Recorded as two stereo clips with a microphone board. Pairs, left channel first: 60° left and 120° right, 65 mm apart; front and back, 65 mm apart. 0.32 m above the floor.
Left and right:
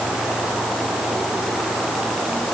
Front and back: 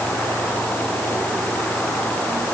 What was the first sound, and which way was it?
Only background noise.